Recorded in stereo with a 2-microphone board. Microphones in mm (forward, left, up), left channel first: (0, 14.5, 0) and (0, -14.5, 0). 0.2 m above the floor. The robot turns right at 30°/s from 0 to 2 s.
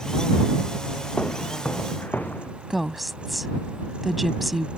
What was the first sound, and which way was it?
Footsteps, 50° left (ahead or behind).